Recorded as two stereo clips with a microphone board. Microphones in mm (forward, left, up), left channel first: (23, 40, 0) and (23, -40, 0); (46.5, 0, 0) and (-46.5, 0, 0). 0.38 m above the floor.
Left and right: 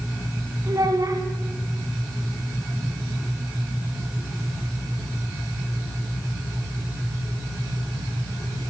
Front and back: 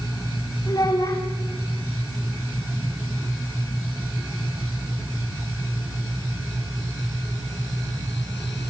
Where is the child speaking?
50° right, 1.8 m.